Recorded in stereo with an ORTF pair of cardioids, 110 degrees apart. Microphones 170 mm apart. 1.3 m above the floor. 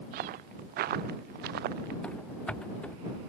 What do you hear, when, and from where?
0.1 s footsteps: 65° right; by 1.9 s 75° right
2.0 s running footsteps: 5° left